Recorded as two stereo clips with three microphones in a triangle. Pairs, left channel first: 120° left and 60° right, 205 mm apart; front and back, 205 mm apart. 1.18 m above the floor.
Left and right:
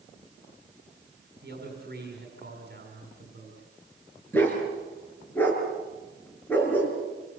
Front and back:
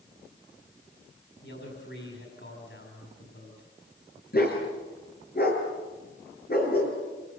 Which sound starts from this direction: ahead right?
A man speaking, at 1.4 s.